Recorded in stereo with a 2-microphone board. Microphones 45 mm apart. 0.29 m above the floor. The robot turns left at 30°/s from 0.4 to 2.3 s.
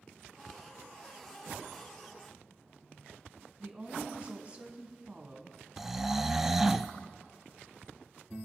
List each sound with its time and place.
3.6 s a woman speaking: 30° right (ahead or behind), 2.5 m
5.8 s snoring: 10° right (ahead or behind), 0.5 m